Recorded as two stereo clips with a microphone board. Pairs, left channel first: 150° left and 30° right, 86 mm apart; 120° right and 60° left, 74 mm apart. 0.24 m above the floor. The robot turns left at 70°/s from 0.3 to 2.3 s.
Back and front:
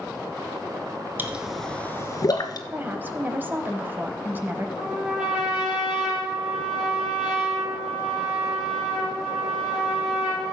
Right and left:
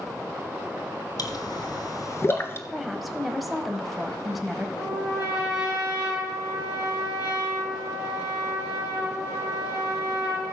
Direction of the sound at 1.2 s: 95° right.